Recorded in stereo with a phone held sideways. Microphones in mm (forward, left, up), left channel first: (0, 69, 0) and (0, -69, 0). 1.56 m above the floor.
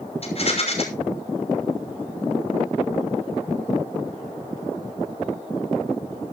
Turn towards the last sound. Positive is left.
turn(degrees=45)  # may be behind; listen again after turning